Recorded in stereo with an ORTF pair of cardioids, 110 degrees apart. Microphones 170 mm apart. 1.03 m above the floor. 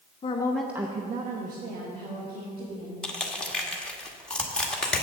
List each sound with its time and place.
0.2 s a woman speaking: 35° left, 0.8 m; by 2.9 s 75° right, 3 m
3.0 s crushing: 5° left, 1.4 m